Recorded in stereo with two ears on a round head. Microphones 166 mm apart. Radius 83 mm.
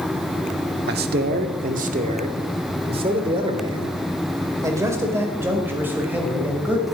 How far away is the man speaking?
About 1.5 m.